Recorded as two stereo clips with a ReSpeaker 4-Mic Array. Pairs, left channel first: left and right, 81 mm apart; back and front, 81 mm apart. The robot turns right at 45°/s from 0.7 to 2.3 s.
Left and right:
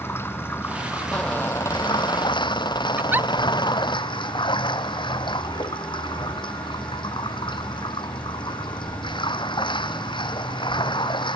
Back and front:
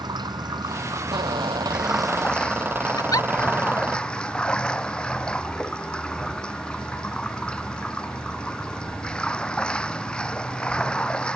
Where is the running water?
30° left; by 11.4 s 100° left.